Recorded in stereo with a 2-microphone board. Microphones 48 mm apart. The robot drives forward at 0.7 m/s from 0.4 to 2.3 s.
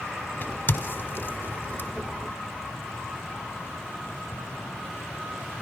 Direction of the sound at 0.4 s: 40° left (ahead or behind).